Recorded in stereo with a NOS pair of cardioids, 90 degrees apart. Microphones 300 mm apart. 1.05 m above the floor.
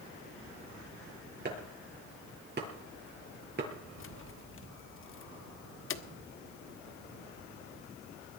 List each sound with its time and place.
1.4 s chopping: 35° right, 7.5 m
4.0 s keys jangling: 45° left, 1.2 m